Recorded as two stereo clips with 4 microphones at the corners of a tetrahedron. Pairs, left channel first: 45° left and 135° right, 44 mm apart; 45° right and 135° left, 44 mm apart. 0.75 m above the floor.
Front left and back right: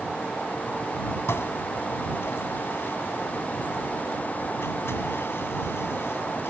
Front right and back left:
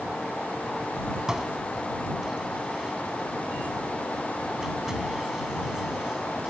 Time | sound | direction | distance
1.3 | dishes clattering | 55° left | ?